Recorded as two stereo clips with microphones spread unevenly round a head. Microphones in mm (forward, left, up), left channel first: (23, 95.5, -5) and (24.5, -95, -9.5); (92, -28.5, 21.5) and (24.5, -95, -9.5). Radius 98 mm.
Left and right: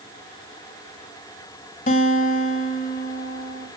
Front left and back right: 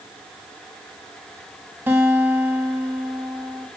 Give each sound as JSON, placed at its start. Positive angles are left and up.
{"t": 1.9, "sound": "a guitar", "azimuth_deg": 135, "distance_m": 1.5}